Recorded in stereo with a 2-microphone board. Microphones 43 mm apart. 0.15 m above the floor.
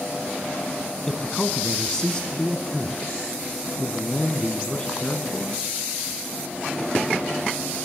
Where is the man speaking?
20° left (ahead or behind), 1.1 m.